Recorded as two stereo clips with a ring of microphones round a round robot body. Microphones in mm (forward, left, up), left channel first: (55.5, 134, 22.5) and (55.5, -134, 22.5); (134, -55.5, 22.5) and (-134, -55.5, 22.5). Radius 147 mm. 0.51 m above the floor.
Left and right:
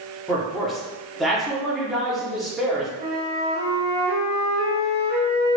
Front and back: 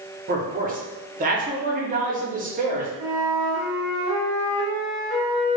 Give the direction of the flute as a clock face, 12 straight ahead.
8 o'clock.